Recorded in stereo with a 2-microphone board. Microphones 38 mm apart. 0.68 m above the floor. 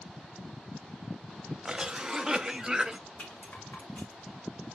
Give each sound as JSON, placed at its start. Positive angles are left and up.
{"t": 1.6, "sound": "a cough", "side_deg": -15, "distance_m": 0.7}
{"t": 3.2, "sound": "a rattle", "side_deg": 40, "distance_m": 1.9}